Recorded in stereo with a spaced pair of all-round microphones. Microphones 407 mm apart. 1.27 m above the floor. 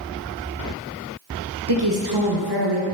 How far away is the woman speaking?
About 0.9 m.